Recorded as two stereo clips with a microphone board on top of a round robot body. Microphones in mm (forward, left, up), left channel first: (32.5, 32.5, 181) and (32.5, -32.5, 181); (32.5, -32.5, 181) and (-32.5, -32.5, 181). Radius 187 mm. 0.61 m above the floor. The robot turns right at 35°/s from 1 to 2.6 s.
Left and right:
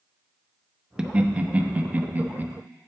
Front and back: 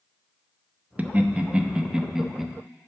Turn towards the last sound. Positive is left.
turn(degrees=-95)